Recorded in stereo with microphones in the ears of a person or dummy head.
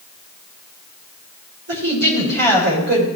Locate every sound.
1.7 s a woman speaking: 60° right (ahead or behind), 5.5 m